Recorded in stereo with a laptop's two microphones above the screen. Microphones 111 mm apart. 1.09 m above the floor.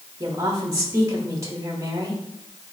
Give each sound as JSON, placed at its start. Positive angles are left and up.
{"t": 0.2, "sound": "a woman speaking", "side_deg": -35, "distance_m": 1.9}